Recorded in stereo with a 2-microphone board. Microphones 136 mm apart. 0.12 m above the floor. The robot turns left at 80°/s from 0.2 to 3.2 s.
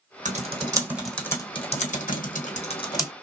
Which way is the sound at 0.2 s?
65° right (ahead or behind).